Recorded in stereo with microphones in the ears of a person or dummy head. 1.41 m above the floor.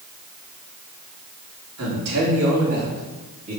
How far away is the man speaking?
About 3.5 m.